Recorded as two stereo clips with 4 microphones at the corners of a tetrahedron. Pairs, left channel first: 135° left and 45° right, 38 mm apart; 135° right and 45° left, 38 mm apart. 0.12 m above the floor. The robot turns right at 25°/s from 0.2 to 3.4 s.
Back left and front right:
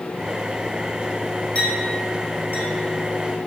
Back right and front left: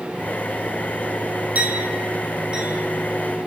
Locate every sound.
1.6 s a clink: 85° left, 2.5 m; by 3.5 s 130° left, 2.5 m